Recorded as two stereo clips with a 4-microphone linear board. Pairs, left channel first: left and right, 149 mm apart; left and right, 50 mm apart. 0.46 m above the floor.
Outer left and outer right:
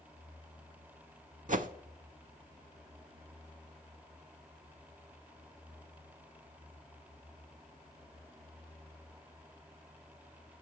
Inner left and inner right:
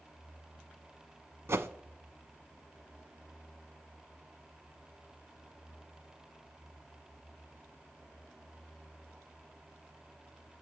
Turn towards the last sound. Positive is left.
turn(degrees=-60)  # may be behind; listen again after turning